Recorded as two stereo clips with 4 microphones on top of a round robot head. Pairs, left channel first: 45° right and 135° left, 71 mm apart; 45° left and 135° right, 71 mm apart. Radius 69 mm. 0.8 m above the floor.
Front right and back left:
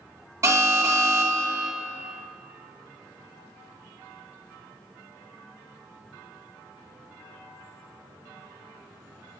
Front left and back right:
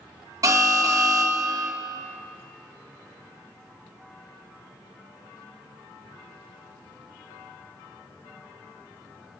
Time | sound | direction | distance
0.4 | an alarm | straight behind | 1.3 m